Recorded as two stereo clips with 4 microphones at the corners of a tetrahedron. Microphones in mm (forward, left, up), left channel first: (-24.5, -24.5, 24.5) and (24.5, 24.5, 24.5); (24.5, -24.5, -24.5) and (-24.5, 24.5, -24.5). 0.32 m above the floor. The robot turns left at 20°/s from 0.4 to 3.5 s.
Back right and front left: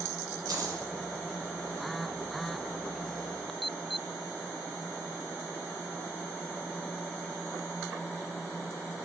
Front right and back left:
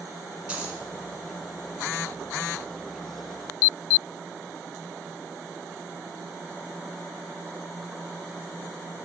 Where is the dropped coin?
65° left, 1.2 m; by 0.8 s 55° left, 1.2 m.